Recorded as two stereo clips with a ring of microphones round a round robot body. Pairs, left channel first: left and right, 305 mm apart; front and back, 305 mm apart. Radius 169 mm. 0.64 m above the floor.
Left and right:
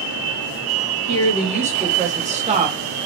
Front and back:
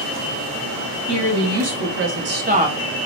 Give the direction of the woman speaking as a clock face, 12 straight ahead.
5 o'clock.